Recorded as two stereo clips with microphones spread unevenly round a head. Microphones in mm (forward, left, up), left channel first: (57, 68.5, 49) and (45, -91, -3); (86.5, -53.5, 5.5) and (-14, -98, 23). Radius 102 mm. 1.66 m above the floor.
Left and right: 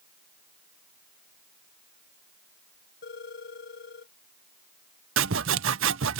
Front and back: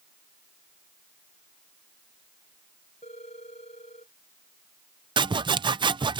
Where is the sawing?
125° right.